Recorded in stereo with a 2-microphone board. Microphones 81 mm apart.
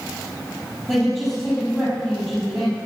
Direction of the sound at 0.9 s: Centre (ahead or behind).